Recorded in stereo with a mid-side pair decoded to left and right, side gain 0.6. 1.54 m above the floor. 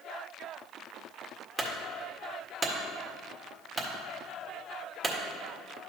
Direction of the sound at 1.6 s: 25° right.